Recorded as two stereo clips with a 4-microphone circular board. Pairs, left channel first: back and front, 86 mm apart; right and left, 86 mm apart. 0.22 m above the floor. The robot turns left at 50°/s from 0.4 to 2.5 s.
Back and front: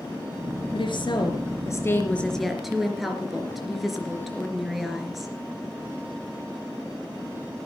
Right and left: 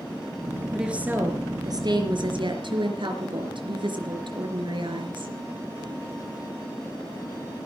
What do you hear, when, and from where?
0.7 s a woman speaking: 175° left, 3.5 m; by 5.3 s 85° left, 3.5 m